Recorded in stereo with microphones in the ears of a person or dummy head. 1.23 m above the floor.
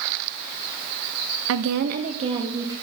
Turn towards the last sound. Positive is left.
turn(degrees=-20)  # may be behind; listen again after turning